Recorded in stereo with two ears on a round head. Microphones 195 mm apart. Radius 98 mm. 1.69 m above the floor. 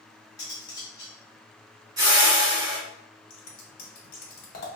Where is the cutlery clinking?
15° left (ahead or behind), 1.4 m.